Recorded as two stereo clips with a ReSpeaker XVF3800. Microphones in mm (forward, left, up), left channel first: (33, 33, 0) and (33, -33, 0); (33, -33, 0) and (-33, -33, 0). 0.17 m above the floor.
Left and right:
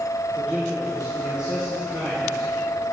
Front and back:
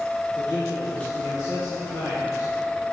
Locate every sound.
0.3 s a man speaking: 20° right, 3 m; by 2.9 s 5° left, 4 m